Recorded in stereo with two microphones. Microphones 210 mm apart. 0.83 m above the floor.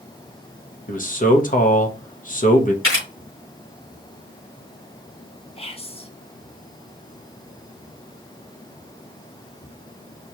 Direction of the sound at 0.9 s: 40° left (ahead or behind).